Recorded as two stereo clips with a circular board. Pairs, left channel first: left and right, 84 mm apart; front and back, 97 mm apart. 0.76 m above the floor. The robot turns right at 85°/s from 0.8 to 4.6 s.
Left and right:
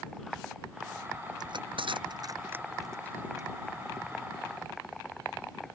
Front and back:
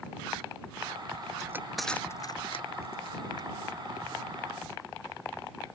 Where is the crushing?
125° right; by 3.5 s 55° left.